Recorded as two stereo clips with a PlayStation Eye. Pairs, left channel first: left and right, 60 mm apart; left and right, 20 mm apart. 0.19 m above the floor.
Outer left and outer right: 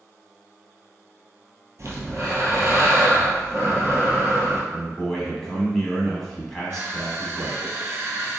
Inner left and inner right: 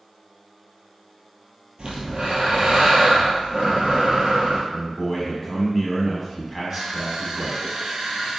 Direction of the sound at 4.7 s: 5° left (ahead or behind).